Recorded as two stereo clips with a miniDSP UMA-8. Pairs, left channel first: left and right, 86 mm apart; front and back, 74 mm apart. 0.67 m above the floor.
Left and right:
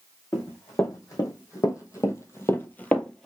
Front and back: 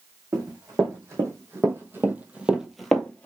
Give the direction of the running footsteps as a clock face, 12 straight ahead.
7 o'clock.